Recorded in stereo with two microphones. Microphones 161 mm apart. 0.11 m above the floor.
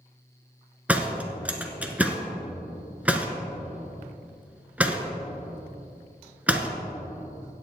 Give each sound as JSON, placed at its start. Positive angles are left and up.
{"t": 0.9, "sound": "a door slam", "side_deg": -10, "distance_m": 1.0}